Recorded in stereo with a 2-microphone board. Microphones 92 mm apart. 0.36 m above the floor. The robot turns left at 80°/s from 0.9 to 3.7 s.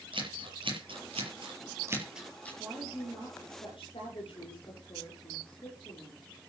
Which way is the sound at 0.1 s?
70° right (ahead or behind).